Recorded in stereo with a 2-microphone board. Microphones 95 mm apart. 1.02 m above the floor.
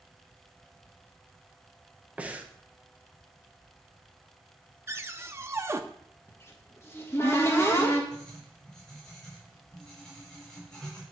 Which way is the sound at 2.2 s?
15° right (ahead or behind).